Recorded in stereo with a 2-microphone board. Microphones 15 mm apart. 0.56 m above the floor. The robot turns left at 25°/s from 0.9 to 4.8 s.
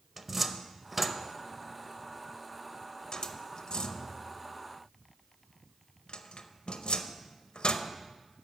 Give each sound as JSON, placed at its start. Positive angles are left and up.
{"t": 0.2, "sound": "a cupboard door", "side_deg": -10, "distance_m": 0.6}